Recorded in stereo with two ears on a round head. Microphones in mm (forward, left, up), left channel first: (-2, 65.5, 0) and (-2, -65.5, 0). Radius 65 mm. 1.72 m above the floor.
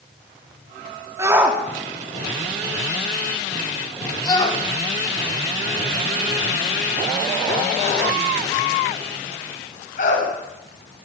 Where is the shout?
20° right (ahead or behind), 4 m; by 10.3 s 55° left (ahead or behind), 11.5 m.